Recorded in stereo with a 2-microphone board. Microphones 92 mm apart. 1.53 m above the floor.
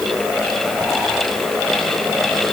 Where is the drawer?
No drawer in this recording.